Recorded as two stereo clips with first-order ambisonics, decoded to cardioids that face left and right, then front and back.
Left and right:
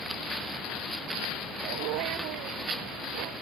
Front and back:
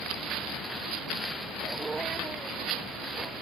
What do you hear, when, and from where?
1.6 s a dog barking: 105° right